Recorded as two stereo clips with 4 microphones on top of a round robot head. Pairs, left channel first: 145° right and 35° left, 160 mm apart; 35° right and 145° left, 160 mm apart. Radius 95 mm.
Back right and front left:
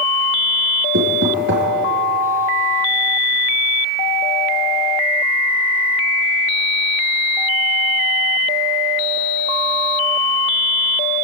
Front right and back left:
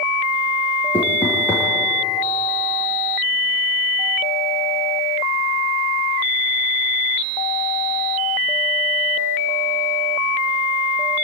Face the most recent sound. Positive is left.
turn(degrees=40)